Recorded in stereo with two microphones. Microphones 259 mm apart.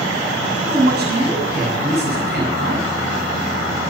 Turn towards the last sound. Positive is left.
turn(degrees=-40)  # may be behind; listen again after turning